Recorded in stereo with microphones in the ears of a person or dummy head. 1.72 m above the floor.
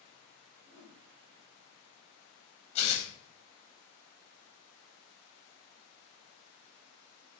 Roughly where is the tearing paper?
Left.